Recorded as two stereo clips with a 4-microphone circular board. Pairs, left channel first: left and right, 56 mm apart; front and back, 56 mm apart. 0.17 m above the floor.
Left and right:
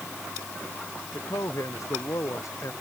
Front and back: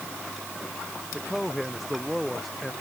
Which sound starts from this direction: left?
A man speaking, at 1.1 s.